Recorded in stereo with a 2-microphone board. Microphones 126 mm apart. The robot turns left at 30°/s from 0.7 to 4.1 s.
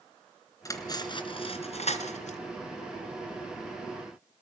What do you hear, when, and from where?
0.7 s cutlery clinking: 25° left (ahead or behind), 2.5 m; by 2.4 s 75° left (ahead or behind), 2.5 m